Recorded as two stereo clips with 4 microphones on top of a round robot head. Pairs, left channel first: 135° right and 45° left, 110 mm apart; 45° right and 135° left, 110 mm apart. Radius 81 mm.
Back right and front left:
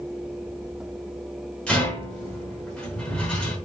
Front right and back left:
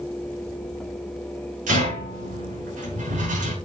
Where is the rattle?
145° left, 6.5 m.